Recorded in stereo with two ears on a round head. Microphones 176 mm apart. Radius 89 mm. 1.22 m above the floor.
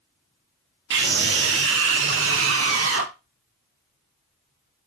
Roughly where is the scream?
Right.